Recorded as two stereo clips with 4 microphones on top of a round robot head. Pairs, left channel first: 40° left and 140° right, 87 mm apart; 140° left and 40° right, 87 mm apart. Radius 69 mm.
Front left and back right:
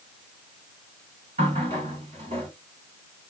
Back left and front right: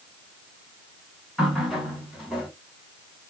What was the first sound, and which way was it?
A running tap, 130° right.